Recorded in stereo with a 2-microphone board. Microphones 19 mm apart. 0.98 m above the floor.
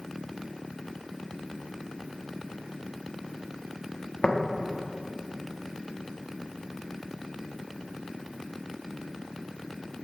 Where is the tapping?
80° left, 1.3 m.